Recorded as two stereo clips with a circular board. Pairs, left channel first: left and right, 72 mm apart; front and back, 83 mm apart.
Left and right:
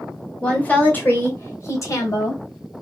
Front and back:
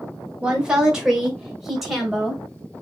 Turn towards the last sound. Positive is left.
turn(degrees=90)